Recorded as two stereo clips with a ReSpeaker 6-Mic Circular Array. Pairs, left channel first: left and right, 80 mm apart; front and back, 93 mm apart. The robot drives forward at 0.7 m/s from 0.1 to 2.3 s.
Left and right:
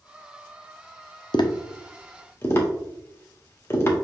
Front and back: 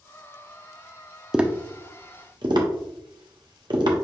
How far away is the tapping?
About 0.5 m.